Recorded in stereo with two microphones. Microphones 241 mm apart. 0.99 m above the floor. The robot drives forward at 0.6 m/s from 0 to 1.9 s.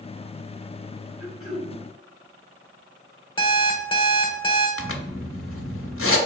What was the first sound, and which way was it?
Throat clearing, 40° right (ahead or behind).